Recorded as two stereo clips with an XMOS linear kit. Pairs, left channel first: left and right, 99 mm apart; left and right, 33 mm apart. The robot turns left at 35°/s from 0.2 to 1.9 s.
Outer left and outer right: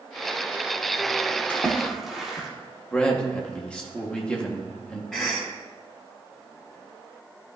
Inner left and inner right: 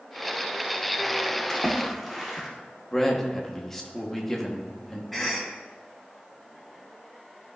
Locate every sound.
1.5 s a splash: 15° left (ahead or behind), 1.7 m; by 2.5 s centre (ahead or behind), 1.7 m
2.9 s a man speaking: 10° left (ahead or behind), 1.4 m
5.1 s a cough: 5° left (ahead or behind), 1.1 m